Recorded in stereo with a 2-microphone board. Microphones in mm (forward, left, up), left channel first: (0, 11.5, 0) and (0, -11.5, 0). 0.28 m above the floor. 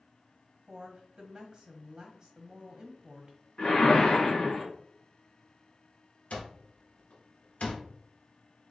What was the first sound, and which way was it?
A woman speaking, 40° right (ahead or behind).